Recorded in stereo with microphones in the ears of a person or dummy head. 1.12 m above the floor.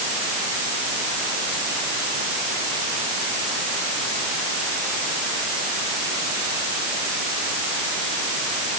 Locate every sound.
Only background noise.